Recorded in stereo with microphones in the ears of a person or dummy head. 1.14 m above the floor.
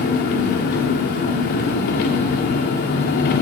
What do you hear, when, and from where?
0.0 s an engine running: 45° left (ahead or behind), 0.9 m